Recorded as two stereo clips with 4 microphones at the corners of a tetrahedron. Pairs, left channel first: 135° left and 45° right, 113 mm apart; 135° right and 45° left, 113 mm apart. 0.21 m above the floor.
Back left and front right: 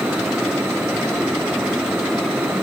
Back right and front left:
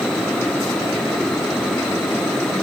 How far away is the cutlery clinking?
I don't hear cutlery clinking.